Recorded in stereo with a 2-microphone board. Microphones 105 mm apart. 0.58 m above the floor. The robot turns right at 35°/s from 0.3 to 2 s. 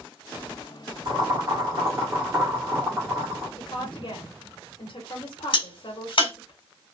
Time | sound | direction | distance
1.1 | boiling | 45° right (ahead or behind) | 1.9 m
3.6 | a woman speaking | 55° left (ahead or behind) | 1.2 m
5.5 | a crack | 60° left (ahead or behind) | 1.7 m